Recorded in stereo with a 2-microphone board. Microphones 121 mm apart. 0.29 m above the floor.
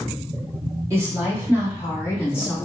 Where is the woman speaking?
25° right (ahead or behind), 1.5 m; by 2.5 s 10° right (ahead or behind), 2.5 m.